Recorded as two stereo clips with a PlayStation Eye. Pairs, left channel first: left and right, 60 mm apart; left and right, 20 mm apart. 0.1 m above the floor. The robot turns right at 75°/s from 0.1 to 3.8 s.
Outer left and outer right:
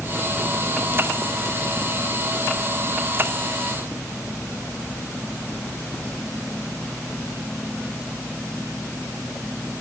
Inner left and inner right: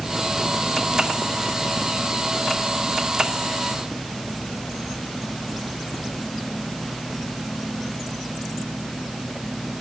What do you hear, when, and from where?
Only background noise.